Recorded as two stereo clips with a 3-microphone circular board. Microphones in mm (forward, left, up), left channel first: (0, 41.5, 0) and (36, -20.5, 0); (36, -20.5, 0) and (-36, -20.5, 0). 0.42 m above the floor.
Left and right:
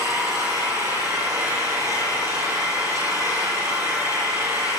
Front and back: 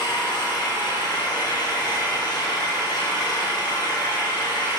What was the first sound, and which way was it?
An engine running, 20° right.